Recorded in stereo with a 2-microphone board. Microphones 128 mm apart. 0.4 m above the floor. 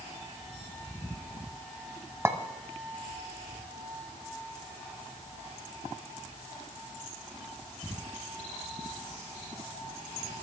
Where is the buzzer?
I don't hear a buzzer.